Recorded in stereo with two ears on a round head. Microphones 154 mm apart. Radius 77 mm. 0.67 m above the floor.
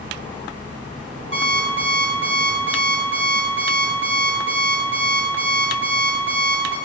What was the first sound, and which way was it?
An alarm clock, 85° right.